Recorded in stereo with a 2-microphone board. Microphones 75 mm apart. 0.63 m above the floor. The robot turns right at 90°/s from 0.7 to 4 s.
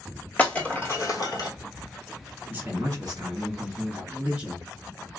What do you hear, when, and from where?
0.4 s breaking glass: 25° left (ahead or behind), 1.3 m; by 1.5 s 65° left (ahead or behind), 1.3 m
2.5 s a man speaking: 155° right, 1.7 m; by 4.7 s 20° right, 1.7 m